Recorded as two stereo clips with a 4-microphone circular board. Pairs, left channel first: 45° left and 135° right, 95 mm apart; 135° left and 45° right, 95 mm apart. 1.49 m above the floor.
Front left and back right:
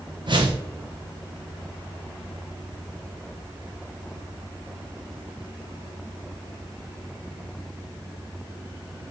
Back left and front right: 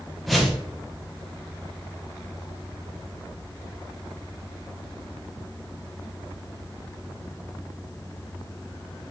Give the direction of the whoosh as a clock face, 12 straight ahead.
5 o'clock.